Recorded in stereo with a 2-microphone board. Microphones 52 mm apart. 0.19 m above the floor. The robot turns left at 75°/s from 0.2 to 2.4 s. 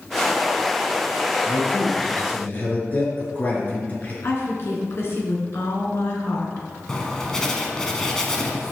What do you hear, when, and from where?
1.5 s a man speaking: 105° left, 3 m; by 4.1 s 35° left, 3 m
4.2 s a woman speaking: 50° left (ahead or behind), 2.5 m
6.9 s writing: 10° left (ahead or behind), 1.2 m